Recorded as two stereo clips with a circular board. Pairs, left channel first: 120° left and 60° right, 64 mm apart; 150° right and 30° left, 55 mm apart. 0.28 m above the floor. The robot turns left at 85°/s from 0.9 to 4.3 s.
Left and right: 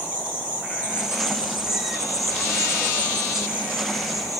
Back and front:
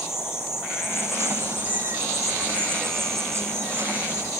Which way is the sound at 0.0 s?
130° right.